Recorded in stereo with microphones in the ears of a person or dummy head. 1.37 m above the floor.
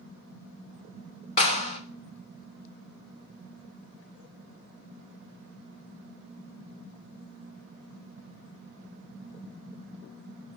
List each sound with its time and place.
1.4 s a clap: 40° left (ahead or behind), 1.1 m